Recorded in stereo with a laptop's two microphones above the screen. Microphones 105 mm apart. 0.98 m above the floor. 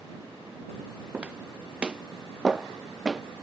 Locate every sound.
1.1 s footsteps: 10° right (ahead or behind); by 3.2 s 5° right (ahead or behind)